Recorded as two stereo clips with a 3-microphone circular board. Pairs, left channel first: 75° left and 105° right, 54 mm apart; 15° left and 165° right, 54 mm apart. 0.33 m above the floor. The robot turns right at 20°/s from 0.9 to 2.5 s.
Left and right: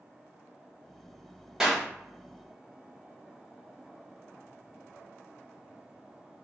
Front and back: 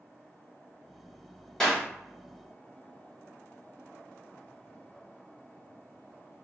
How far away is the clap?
About 1.1 m.